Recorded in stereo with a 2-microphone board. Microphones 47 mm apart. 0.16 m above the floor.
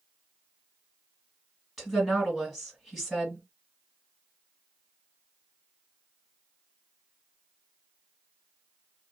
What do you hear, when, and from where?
1.8 s a woman speaking: 10° left (ahead or behind), 2 m